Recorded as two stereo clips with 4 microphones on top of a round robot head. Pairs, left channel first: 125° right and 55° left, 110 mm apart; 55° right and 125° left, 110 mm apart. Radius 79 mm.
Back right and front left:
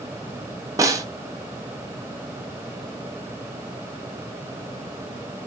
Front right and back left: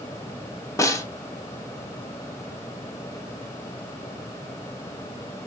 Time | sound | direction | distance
0.8 | a snare drum | straight ahead | 0.8 m